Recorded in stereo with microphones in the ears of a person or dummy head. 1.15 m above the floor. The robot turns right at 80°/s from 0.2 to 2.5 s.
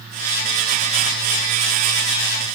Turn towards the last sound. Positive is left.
No sound to turn to.